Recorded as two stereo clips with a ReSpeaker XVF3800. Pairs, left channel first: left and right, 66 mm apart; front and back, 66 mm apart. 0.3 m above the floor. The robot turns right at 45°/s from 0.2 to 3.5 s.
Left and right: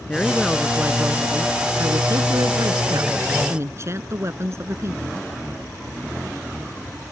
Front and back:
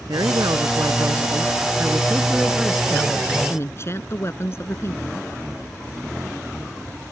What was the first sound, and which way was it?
A woman speaking, 165° left.